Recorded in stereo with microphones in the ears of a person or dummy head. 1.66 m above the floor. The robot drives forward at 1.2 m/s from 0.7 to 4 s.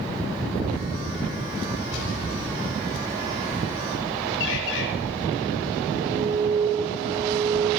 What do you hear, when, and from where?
1.9 s an explosion: 80° left, 9.5 m; by 3.1 s 85° left, 9.5 m
4.4 s a bird: 70° left (ahead or behind), 6.5 m
6.0 s an alarm: 5° left (ahead or behind), 6 m